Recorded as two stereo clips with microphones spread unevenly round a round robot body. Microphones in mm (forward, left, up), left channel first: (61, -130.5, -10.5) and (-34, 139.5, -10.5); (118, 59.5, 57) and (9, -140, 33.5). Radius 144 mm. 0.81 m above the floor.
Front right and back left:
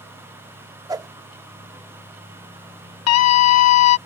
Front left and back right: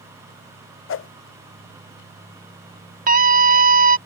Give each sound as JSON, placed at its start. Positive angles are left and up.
{"t": 0.9, "sound": "a whoosh", "azimuth_deg": 30}
{"t": 3.1, "sound": "a scream", "azimuth_deg": -85}